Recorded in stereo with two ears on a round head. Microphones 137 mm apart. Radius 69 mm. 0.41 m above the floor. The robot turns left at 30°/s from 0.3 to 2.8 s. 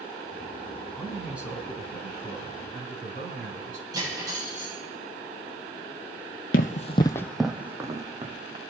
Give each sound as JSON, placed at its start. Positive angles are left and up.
{"t": 0.9, "sound": "a man speaking", "azimuth_deg": 5, "distance_m": 3.5}
{"t": 3.9, "sound": "cutlery clinking", "side_deg": -25, "distance_m": 8.0}
{"t": 6.5, "sound": "running footsteps", "side_deg": 60, "distance_m": 0.8}